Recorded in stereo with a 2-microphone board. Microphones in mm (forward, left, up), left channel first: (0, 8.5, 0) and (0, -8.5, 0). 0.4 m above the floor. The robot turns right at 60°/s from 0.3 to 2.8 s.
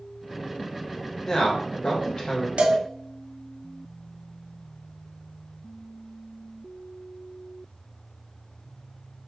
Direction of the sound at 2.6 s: 75° right (ahead or behind).